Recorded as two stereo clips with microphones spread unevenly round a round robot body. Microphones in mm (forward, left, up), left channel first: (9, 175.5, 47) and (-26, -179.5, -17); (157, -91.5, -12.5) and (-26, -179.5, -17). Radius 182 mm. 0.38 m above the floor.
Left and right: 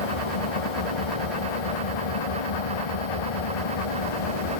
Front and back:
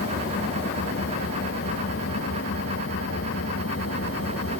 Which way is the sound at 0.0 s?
85° left.